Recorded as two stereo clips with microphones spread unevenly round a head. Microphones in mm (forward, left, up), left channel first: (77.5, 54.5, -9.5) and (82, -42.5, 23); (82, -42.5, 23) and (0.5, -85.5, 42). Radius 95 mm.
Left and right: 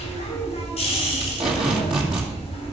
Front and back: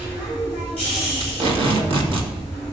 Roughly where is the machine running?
Behind left.